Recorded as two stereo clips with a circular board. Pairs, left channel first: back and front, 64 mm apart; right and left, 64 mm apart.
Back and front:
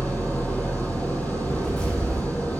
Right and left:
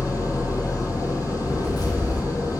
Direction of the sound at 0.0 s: 115° right.